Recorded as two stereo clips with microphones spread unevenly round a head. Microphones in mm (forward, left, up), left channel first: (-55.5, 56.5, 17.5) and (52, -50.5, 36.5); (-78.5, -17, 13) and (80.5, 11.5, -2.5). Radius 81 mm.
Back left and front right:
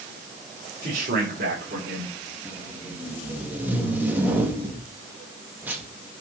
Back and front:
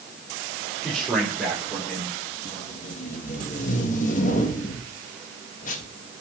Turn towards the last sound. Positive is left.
turn(degrees=-125)